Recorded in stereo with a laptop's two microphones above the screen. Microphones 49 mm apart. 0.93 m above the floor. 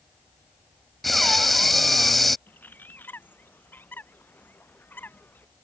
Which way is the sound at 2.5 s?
40° left (ahead or behind).